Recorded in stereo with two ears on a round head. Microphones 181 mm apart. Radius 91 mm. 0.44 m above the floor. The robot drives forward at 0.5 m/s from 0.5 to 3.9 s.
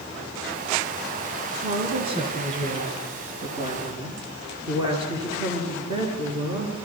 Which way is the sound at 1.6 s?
30° right (ahead or behind).